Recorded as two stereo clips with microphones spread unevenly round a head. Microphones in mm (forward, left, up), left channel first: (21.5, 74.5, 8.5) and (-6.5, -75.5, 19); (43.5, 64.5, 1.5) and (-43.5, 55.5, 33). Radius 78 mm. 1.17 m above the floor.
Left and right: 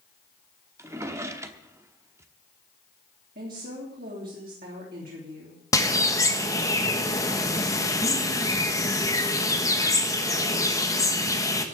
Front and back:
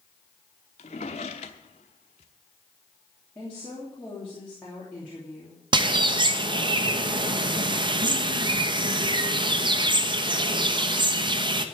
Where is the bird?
150° left, 1.2 m.